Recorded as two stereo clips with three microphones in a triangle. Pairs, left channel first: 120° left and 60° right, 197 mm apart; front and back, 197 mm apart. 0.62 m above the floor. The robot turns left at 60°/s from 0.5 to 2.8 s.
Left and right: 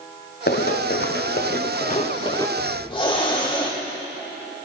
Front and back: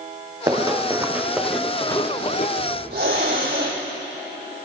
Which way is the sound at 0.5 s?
115° left.